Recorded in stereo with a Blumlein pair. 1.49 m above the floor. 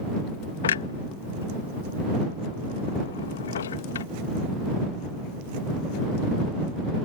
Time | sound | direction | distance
0.6 | a clunk | 65° left | ?